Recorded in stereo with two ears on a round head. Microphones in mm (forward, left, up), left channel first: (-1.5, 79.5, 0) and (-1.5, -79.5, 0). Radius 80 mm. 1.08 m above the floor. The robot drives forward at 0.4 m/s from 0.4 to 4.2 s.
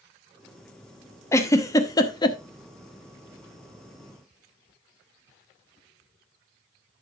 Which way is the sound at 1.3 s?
15° left (ahead or behind).